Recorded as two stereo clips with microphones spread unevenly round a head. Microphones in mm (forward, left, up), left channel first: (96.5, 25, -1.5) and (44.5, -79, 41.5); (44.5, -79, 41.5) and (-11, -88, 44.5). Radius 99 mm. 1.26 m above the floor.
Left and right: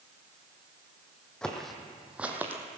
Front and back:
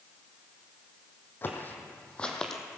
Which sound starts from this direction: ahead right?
Footsteps, at 1.4 s.